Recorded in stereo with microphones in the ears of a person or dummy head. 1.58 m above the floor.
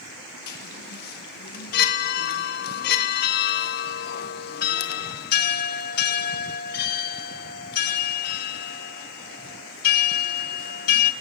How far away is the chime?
About 1.3 m.